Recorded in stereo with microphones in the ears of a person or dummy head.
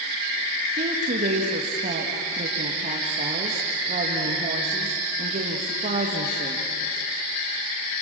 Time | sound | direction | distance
0.8 | a woman speaking | 40° right (ahead or behind) | 2 m